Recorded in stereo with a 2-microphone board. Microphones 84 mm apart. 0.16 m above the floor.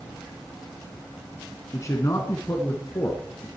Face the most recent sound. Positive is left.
turn(degrees=35)  # may be behind; listen again after turning